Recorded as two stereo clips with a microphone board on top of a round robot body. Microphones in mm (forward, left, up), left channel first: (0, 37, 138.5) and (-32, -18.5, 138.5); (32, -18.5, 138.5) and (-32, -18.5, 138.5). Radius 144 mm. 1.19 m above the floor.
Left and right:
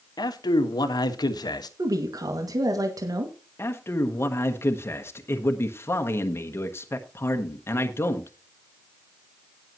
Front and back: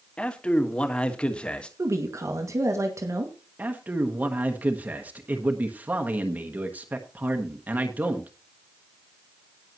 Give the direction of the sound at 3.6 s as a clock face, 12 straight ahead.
8 o'clock.